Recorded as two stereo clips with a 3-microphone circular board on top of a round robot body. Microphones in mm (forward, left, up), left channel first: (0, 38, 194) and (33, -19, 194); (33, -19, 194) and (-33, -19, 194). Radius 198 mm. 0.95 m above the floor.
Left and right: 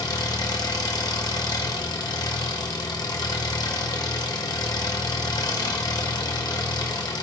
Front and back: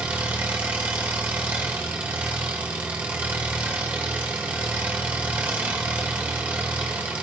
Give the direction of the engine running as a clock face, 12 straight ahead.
8 o'clock.